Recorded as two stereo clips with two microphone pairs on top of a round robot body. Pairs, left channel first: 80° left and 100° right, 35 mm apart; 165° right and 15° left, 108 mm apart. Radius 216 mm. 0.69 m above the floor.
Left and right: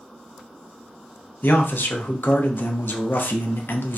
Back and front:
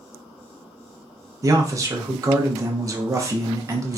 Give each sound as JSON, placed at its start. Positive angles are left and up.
{"t": 1.4, "sound": "a man speaking", "azimuth_deg": 75, "distance_m": 0.8}